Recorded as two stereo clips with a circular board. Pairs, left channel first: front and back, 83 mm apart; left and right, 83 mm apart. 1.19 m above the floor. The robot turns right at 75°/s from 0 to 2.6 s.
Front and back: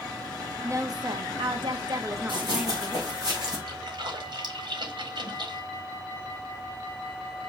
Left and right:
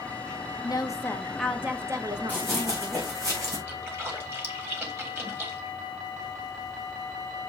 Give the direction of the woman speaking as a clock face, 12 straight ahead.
8 o'clock.